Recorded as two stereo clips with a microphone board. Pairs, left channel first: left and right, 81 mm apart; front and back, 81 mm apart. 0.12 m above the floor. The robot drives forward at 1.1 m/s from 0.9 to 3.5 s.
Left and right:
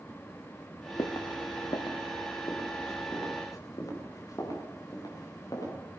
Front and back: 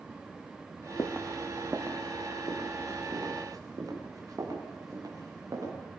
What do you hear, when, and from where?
1.0 s footsteps: 50° left, 0.9 m; by 5.7 s 130° left, 8 m